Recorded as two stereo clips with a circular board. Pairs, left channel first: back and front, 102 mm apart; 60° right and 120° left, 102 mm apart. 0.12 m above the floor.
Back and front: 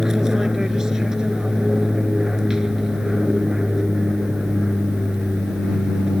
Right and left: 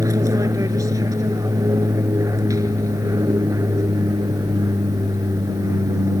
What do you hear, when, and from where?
0.0 s an aircraft: 85° left